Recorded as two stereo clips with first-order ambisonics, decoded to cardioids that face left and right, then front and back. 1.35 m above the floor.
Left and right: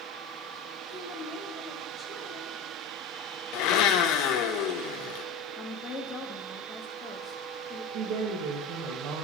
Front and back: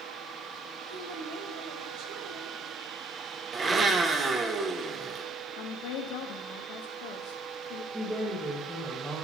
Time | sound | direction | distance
0.9 | a woman speaking | 170° left | 1.9 m
3.5 | a blender | 110° left | 0.8 m
5.6 | a woman speaking | 15° left | 1.2 m
7.9 | a woman speaking | 100° right | 1.9 m